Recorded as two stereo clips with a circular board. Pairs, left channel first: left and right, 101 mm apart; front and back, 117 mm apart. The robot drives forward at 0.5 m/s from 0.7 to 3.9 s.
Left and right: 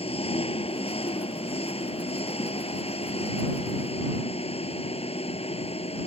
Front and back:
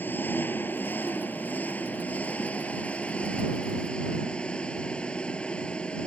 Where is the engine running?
75° left; by 6.1 s 80° left.